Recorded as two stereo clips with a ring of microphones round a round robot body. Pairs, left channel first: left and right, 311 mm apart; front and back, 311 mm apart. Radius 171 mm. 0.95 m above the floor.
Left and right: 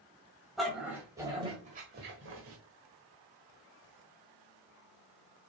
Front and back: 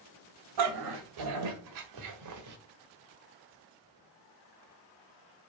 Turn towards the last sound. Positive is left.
turn(degrees=-140)